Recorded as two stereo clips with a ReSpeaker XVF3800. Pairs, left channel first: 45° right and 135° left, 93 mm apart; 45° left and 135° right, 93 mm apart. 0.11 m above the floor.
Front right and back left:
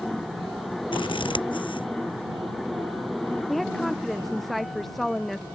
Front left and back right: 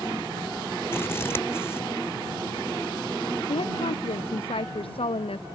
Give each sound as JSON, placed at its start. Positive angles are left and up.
{"t": 0.9, "sound": "scissors", "azimuth_deg": -20}
{"t": 3.5, "sound": "a woman speaking", "azimuth_deg": 45}